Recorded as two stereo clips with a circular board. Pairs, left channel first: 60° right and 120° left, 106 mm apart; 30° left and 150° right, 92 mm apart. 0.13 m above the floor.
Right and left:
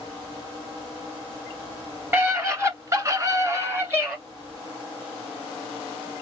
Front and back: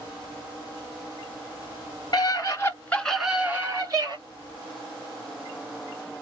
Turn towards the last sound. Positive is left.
turn(degrees=-175)